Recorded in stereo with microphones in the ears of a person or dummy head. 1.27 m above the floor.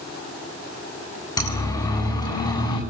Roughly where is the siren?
Centre.